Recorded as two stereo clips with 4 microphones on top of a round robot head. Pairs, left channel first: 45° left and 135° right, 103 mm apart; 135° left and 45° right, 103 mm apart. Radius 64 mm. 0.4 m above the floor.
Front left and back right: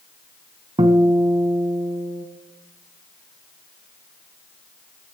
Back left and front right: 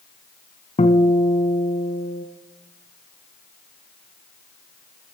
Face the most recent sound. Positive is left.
turn(degrees=170)